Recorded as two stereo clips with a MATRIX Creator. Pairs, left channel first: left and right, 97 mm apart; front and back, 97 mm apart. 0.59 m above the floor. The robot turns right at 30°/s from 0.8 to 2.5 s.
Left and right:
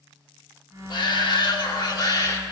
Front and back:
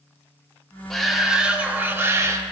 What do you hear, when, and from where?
0.9 s a shout: 85° left, 1.2 m; by 2.4 s 130° left, 1.2 m